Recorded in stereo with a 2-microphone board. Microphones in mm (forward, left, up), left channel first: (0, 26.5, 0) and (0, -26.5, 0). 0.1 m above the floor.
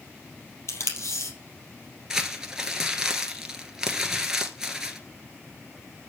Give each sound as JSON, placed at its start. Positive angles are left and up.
{"t": 0.7, "sound": "tape being pulled", "side_deg": 60, "distance_m": 3.5}
{"t": 2.1, "sound": "crumpling", "side_deg": -10, "distance_m": 1.5}